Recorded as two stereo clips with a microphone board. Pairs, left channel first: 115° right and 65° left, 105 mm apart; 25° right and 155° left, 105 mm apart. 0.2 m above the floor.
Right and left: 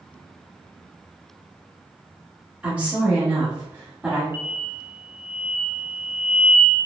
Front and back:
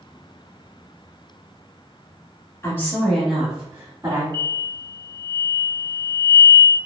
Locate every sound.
2.6 s a woman speaking: straight ahead, 1.2 m; by 4.2 s 130° left, 1.4 m
4.3 s an explosion: 125° left, 0.6 m